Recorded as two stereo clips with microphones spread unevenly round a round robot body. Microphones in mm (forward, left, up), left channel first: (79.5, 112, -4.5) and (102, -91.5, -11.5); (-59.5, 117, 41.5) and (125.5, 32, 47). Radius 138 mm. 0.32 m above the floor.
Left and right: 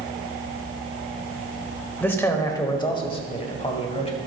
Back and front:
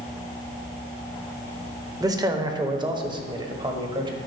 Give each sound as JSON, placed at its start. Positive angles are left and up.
{"t": 2.0, "sound": "a man speaking", "azimuth_deg": 25, "distance_m": 0.9}